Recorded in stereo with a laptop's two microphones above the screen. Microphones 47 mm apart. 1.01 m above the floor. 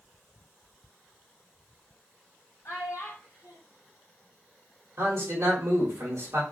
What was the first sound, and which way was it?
A child speaking, 70° left (ahead or behind).